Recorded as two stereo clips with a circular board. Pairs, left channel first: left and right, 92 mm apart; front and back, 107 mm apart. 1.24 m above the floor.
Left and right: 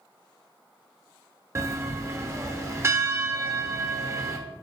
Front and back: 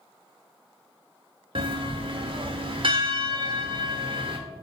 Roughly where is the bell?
Behind right.